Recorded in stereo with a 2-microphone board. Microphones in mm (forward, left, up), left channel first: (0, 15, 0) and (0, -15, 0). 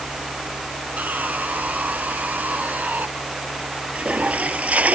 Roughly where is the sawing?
Right.